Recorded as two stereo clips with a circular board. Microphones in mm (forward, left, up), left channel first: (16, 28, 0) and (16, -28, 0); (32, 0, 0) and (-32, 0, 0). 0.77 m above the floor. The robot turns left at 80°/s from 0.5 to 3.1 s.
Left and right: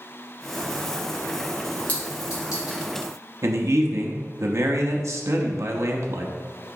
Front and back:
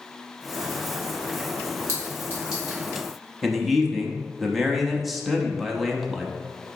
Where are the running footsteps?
No running footsteps in this recording.